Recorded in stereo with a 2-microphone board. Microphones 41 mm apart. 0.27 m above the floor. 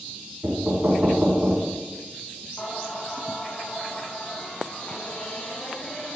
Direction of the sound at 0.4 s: 55° right (ahead or behind).